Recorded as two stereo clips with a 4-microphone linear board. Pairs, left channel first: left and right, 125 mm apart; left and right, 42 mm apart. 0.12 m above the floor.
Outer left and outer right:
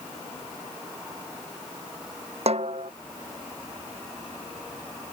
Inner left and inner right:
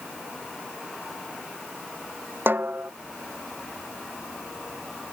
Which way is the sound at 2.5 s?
55° right (ahead or behind).